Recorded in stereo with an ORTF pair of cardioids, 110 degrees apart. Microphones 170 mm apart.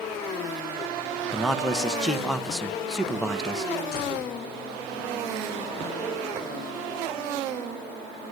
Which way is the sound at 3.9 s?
65° left.